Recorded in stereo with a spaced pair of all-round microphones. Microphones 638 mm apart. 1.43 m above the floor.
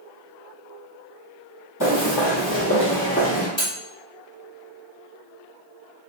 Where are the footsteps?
30° left (ahead or behind), 2.0 m; by 3.5 s 10° left (ahead or behind), 1.4 m.